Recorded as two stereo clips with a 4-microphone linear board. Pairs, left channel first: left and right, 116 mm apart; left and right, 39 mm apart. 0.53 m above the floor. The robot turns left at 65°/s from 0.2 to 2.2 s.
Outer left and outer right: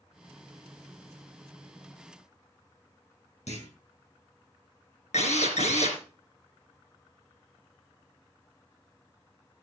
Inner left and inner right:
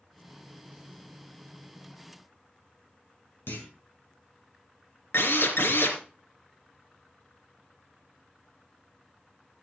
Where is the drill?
80° left, 3 m.